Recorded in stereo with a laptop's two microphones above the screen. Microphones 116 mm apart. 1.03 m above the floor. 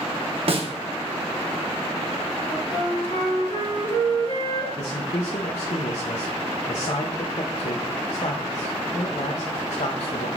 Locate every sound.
0.5 s a snare drum: 55° right (ahead or behind), 0.7 m
2.5 s a flute: 55° left (ahead or behind), 1.8 m
4.8 s a man speaking: 75° left (ahead or behind), 0.5 m